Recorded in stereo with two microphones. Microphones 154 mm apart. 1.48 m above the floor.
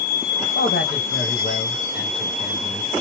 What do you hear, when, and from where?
0.6 s a man speaking: 85° left, 1.3 m